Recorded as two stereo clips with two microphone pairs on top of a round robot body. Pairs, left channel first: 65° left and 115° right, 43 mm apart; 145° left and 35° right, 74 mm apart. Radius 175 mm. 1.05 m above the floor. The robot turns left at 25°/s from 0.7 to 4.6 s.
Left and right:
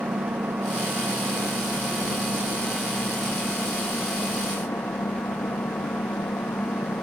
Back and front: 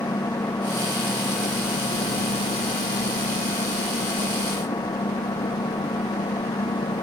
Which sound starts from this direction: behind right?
An engine running, at 0.0 s.